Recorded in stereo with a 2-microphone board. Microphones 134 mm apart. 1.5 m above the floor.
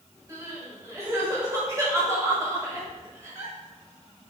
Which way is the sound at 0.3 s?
25° right (ahead or behind).